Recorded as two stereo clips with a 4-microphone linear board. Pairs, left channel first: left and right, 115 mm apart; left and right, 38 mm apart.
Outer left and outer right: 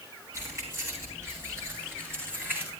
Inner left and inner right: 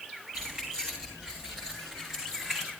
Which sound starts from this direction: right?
Keys jangling, at 0.3 s.